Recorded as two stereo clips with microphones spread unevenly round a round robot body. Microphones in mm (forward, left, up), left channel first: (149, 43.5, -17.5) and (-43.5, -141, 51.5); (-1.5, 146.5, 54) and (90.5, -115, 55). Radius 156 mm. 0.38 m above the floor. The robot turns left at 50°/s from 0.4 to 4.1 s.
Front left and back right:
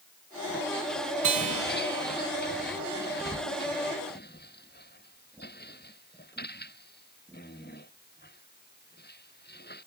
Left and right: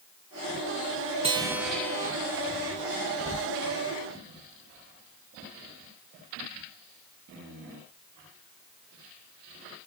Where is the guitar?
140° right, 1.6 m; by 2.1 s straight behind, 1.6 m.